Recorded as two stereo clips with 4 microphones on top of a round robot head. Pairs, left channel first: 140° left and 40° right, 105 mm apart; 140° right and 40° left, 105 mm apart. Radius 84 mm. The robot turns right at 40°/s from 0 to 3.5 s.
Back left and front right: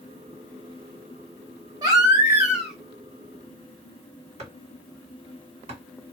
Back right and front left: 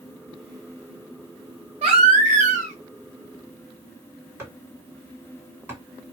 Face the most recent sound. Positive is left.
turn(degrees=-30)